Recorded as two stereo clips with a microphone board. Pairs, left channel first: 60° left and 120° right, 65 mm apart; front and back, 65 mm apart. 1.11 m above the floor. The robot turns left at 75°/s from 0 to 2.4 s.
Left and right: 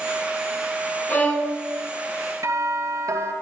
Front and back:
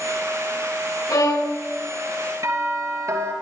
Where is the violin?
5° left, 6 m; by 1.6 s 30° right, 6 m.